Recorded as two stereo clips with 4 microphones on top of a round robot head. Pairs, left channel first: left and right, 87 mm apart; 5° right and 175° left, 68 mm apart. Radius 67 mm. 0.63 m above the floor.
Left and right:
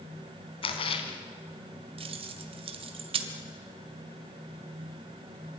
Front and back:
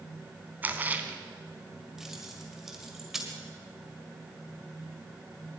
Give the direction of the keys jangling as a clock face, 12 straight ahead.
3 o'clock.